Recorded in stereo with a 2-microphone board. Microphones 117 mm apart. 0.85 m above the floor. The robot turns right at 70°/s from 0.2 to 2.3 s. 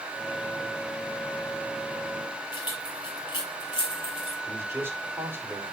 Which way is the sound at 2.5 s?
40° left (ahead or behind).